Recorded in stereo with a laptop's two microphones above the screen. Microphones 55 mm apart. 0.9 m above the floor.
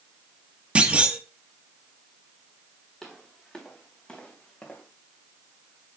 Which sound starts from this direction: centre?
Footsteps, at 3.0 s.